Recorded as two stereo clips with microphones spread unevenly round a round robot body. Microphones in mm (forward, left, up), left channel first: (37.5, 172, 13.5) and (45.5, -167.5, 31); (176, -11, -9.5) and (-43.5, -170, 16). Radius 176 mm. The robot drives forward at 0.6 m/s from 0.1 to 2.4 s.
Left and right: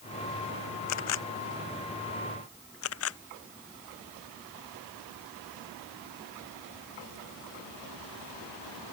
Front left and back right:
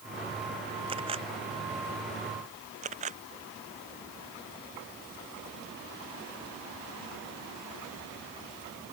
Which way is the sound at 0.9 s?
140° left.